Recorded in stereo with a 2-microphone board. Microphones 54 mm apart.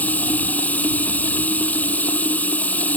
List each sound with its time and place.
0.0 s running water: 30° left (ahead or behind)